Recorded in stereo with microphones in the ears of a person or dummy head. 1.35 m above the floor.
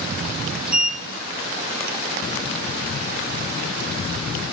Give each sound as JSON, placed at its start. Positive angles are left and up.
{"t": 0.7, "sound": "a sliding door", "side_deg": -5, "distance_m": 1.6}